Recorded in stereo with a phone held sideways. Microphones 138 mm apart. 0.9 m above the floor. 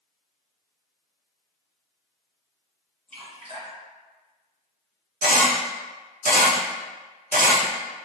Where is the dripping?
45° right (ahead or behind), 1.7 m.